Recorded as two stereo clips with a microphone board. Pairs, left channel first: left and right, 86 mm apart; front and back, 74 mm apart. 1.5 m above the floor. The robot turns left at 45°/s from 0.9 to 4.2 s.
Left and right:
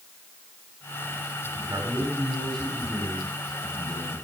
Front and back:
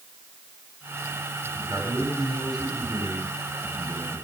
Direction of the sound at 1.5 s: 140° right.